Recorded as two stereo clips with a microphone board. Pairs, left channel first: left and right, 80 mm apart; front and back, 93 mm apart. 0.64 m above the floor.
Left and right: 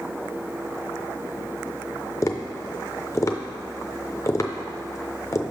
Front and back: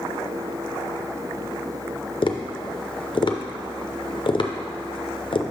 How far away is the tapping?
About 0.5 m.